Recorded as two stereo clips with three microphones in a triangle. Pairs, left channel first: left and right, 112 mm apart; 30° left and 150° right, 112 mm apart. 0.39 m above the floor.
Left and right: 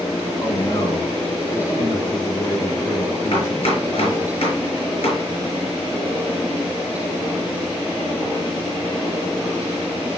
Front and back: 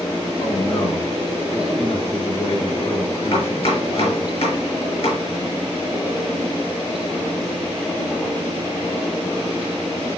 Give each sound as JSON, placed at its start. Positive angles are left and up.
{"t": 0.4, "sound": "a man speaking", "azimuth_deg": 35, "distance_m": 5.5}
{"t": 3.3, "sound": "chopping", "azimuth_deg": 60, "distance_m": 5.0}